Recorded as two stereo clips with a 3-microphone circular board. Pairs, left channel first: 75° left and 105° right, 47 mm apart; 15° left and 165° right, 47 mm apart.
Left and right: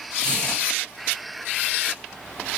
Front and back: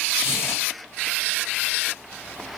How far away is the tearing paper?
About 3.5 m.